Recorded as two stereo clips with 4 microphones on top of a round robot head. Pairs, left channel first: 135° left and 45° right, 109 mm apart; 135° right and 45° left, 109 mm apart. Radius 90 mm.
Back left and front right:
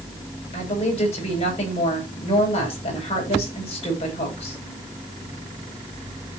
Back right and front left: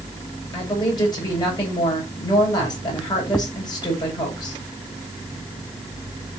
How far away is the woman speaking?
About 8.5 m.